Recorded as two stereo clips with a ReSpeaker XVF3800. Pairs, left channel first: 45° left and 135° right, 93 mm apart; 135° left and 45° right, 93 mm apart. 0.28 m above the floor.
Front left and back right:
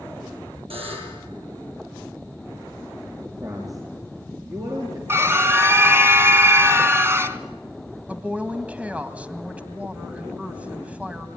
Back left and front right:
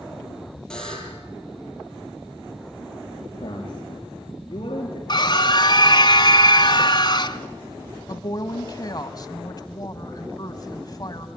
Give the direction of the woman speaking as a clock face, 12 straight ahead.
7 o'clock.